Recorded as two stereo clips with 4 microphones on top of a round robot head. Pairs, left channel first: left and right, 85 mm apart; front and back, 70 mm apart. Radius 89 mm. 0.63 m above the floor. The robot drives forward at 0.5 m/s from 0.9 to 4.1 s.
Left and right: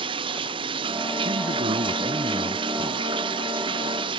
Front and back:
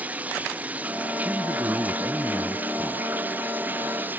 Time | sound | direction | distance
0.0 | running water | 105° right | ?
1.2 | a man speaking | 110° right | ?